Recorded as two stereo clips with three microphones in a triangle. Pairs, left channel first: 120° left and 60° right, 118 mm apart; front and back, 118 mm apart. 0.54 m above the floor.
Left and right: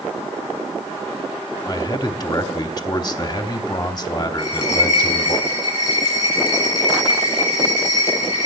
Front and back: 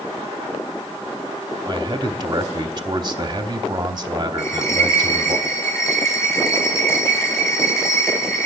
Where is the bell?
70° left, 6 m.